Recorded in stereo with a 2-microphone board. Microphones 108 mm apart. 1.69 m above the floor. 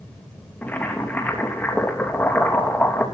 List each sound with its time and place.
0.6 s boiling: 15° left (ahead or behind), 3 m